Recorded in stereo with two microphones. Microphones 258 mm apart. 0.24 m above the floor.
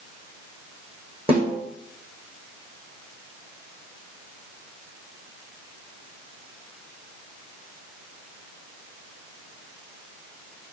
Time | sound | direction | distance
1.3 | a snare drum | 20° right (ahead or behind) | 5.5 m